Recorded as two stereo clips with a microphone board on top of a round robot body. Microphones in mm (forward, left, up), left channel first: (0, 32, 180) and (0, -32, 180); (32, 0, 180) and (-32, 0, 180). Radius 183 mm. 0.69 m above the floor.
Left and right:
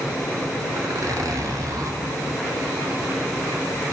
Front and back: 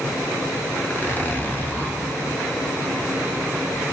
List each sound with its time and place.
0.8 s a zipper: 55° right, 2.5 m